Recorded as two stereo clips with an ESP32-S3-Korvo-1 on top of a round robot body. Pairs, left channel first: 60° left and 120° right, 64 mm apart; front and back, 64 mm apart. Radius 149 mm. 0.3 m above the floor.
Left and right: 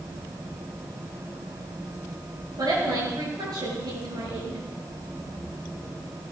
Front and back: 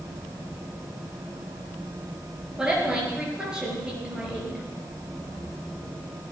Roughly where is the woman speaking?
Right.